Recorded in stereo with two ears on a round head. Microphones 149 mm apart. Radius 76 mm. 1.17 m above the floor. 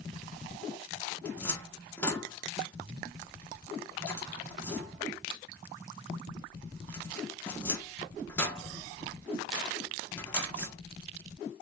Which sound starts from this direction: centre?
A cupboard door, at 1.2 s.